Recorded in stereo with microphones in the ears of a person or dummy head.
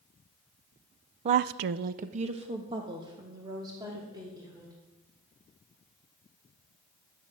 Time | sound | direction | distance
1.2 | a woman speaking | 30° right (ahead or behind) | 0.6 m